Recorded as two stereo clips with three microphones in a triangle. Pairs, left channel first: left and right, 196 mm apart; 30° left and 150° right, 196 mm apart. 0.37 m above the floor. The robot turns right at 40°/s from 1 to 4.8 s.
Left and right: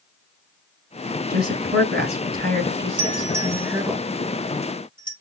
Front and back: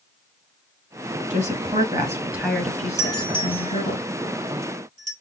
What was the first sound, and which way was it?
A woman speaking, 110° right.